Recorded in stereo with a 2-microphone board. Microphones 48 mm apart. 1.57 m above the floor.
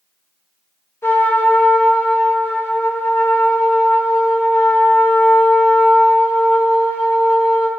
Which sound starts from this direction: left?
A trumpet, at 1.0 s.